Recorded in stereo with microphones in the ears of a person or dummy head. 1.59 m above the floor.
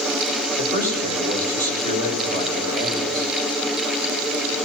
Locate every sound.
0.6 s a man speaking: 55° right (ahead or behind), 8 m